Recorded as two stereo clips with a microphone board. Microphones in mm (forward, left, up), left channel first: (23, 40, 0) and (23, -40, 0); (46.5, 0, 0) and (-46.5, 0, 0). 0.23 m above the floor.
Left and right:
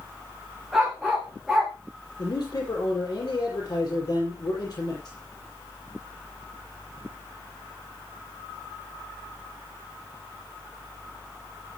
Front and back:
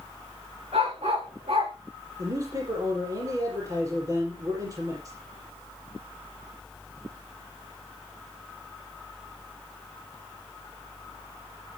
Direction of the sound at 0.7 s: Straight behind.